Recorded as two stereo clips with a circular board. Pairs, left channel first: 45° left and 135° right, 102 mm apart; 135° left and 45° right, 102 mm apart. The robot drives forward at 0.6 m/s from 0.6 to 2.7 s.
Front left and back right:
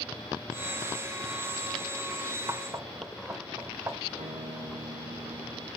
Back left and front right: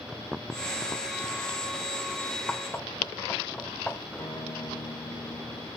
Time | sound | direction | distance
2.5 | knocking | 160° right | 1.3 m
4.2 | a guitar | 155° right | 4.5 m